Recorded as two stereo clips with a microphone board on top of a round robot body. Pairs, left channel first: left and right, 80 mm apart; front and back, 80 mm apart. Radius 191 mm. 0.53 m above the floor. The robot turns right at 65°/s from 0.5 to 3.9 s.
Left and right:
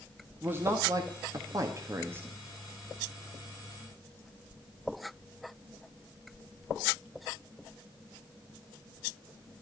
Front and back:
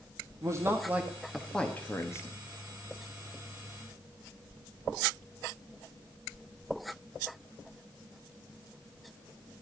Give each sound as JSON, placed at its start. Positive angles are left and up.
{"t": 0.4, "sound": "a man speaking", "azimuth_deg": -145, "distance_m": 1.6}